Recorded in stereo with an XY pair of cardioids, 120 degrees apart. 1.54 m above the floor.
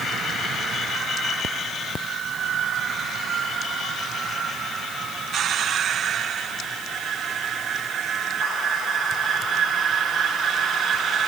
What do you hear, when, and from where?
Only background noise.